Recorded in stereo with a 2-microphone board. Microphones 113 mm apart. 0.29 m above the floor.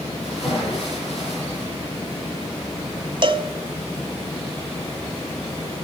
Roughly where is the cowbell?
Right.